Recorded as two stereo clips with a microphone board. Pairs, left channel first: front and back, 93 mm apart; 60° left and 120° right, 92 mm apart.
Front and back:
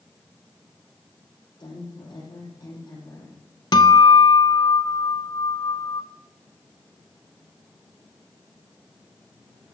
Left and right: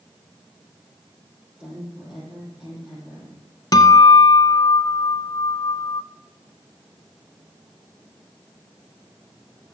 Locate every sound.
1.6 s a woman speaking: 40° right, 7 m
3.7 s a guitar: 25° left, 0.9 m